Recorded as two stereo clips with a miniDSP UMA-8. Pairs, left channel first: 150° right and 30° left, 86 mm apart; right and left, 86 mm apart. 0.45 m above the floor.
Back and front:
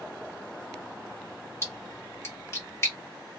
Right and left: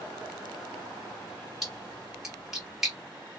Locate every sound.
1.6 s a splash: 175° left, 1.6 m